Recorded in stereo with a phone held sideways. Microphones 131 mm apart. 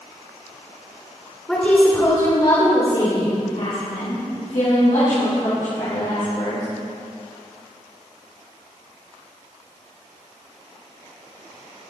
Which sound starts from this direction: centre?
A woman speaking, at 1.5 s.